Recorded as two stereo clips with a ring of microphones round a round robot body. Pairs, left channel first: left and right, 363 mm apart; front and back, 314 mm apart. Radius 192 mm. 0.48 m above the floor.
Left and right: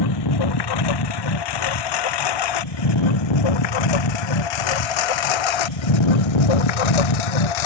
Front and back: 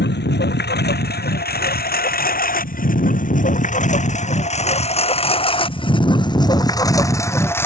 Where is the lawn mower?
60° left; by 7.7 s 85° left.